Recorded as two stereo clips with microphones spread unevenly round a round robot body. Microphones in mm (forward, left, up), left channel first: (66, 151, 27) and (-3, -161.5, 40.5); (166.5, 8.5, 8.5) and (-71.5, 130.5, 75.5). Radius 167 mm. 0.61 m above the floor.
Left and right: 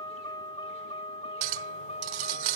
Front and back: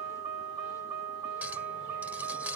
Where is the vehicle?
155° left; by 2.6 s 150° left.